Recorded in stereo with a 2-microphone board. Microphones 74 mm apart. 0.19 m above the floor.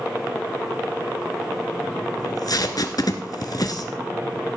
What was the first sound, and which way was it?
Tape being pulled, 60° left (ahead or behind).